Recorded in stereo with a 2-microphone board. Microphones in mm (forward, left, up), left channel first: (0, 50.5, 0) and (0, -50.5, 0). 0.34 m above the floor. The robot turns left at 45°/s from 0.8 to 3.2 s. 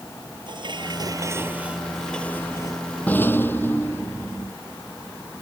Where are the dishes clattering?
130° right; by 3.0 s 135° left.